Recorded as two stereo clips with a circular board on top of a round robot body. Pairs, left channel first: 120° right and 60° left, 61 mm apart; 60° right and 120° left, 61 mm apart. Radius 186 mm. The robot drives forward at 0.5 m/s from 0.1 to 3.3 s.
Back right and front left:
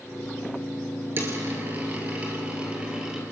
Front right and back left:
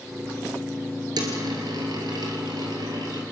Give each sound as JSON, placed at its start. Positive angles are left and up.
{"t": 1.2, "sound": "a dropped coin", "azimuth_deg": 115, "distance_m": 1.9}